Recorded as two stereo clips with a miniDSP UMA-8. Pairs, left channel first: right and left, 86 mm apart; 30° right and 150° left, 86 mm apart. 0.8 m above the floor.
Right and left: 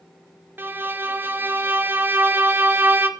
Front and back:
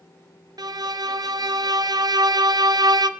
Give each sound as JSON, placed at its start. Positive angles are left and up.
{"t": 0.6, "sound": "a violin", "azimuth_deg": 150, "distance_m": 0.5}